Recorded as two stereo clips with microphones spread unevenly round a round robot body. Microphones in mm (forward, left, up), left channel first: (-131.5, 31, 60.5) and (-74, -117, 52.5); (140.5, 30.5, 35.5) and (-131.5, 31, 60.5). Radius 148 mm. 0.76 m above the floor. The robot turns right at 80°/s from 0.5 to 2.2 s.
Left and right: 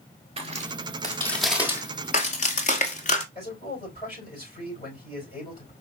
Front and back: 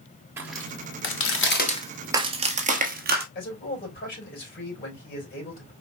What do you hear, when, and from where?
0.4 s footsteps: 105° right, 1.0 m; by 3.2 s 135° left, 1.4 m
3.4 s a man speaking: 55° left, 4.5 m